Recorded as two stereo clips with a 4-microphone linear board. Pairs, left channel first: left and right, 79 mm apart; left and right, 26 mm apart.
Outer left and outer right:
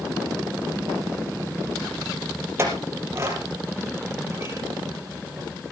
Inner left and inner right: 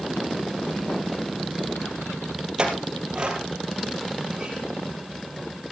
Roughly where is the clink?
Right.